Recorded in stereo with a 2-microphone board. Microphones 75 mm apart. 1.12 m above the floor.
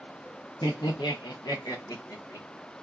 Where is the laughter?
65° left (ahead or behind), 0.6 m; by 2.5 s 45° left (ahead or behind), 1.2 m.